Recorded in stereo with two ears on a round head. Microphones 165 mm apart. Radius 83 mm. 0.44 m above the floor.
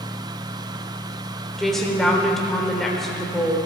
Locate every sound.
1.6 s a woman speaking: centre (ahead or behind), 1.6 m